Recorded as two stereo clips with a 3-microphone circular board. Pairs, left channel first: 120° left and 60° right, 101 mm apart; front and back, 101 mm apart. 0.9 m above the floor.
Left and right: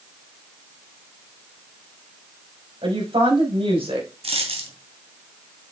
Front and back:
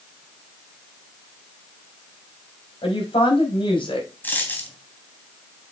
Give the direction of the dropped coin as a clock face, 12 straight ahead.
2 o'clock.